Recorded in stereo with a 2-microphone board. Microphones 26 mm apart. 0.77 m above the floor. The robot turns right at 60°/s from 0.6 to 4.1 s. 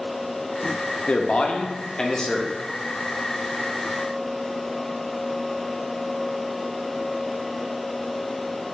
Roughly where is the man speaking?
Left.